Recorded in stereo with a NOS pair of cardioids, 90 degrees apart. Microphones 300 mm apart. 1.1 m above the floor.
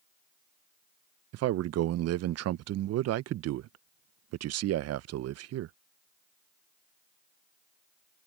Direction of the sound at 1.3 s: 60° right.